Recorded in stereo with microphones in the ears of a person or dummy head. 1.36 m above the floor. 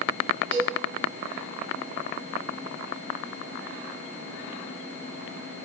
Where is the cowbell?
35° right (ahead or behind), 2.5 m.